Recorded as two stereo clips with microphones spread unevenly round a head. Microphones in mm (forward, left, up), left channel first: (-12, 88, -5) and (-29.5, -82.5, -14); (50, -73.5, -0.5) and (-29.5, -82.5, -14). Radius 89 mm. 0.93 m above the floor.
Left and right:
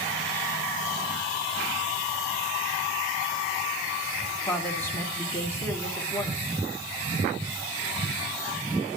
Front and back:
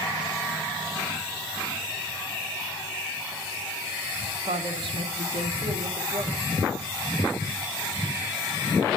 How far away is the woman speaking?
About 1.8 m.